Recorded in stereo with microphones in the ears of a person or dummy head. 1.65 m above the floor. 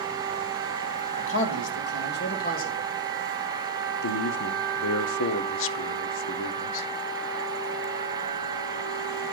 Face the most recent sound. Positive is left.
turn(degrees=80)